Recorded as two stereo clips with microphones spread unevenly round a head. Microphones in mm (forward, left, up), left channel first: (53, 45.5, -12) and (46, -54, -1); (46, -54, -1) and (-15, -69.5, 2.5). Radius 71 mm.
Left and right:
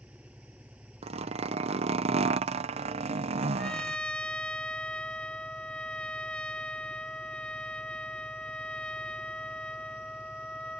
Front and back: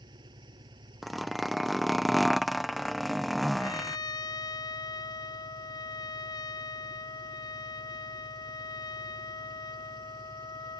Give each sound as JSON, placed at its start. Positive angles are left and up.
{"t": 0.0, "sound": "an engine running", "azimuth_deg": -175}
{"t": 1.0, "sound": "a zipper", "azimuth_deg": -75}
{"t": 3.6, "sound": "a trumpet", "azimuth_deg": 5}